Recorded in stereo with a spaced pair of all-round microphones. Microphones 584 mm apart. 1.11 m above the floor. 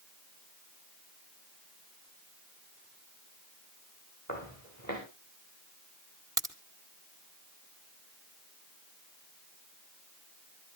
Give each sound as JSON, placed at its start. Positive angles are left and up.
{"t": 4.3, "sound": "footsteps", "side_deg": -30, "distance_m": 7.0}
{"t": 6.4, "sound": "a crack", "side_deg": -5, "distance_m": 2.0}